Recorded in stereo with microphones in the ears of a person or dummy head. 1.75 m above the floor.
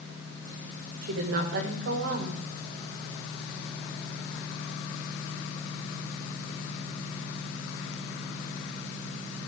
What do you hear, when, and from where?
1.0 s a woman speaking: 65° right (ahead or behind), 2.0 m